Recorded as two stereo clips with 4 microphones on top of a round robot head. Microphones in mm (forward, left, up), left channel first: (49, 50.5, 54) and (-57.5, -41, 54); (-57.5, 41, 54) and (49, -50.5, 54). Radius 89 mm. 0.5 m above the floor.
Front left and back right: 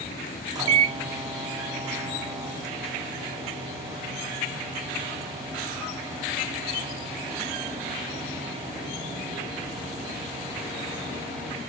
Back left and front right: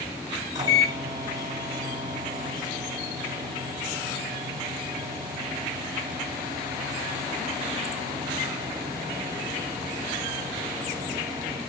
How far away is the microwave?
About 1.2 m.